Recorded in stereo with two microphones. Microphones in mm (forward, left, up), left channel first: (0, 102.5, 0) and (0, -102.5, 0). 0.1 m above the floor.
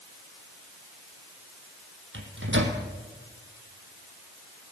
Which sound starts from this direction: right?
A microwave, at 2.1 s.